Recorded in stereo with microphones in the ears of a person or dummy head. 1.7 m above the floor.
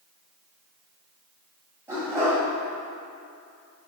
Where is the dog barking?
15° right (ahead or behind), 2.5 m.